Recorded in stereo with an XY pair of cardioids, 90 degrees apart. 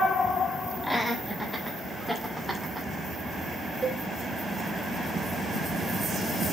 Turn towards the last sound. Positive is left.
turn(degrees=-40)